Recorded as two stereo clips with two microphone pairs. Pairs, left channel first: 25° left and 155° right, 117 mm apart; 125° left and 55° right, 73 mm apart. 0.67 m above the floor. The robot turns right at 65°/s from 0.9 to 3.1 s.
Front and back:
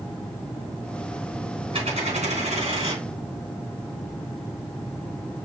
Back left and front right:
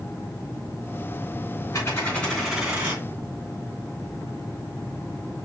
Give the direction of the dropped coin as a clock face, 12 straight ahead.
6 o'clock.